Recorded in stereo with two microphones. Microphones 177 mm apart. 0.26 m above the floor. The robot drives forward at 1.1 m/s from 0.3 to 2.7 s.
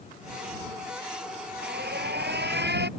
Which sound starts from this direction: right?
An alarm, at 1.6 s.